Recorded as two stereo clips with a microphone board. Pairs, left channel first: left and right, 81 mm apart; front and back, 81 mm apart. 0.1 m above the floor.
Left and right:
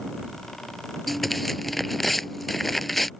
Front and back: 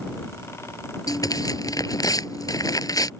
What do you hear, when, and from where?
1.1 s tearing paper: straight ahead